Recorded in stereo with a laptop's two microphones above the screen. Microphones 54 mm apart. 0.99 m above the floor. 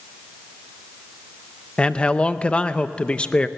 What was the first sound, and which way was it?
A man speaking, 20° left (ahead or behind).